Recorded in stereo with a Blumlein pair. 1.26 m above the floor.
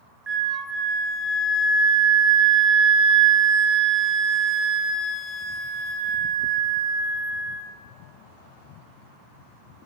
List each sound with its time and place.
0.3 s a flute: 20° right, 1.0 m